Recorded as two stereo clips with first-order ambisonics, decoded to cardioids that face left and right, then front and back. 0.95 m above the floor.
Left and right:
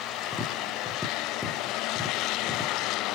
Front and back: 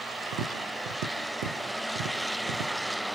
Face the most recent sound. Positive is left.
turn(degrees=175)